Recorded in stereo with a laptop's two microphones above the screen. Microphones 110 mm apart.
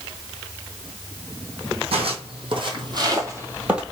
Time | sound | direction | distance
1.9 | footsteps | 60° right (ahead or behind) | 1.9 m